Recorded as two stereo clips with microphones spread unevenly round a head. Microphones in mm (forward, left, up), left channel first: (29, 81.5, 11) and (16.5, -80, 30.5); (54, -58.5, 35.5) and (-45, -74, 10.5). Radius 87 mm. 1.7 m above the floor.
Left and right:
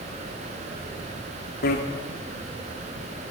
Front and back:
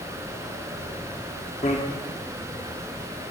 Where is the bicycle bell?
60° left, 3 m.